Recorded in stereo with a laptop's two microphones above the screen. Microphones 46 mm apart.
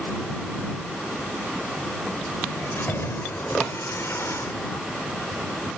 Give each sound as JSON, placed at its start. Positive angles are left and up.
{"t": 2.5, "sound": "keys jangling", "side_deg": 60}